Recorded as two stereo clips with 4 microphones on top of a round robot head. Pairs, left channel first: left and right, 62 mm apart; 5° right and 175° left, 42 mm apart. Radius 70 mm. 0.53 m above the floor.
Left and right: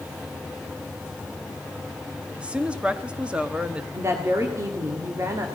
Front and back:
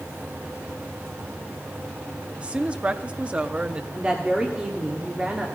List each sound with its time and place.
2.4 s a woman speaking: 150° right, 0.9 m
3.9 s a woman speaking: 120° right, 1.6 m